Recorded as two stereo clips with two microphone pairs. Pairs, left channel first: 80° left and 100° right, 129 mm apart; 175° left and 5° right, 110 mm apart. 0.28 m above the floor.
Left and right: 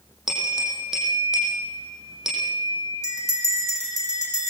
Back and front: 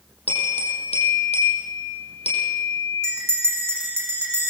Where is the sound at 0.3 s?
175° left, 8 m.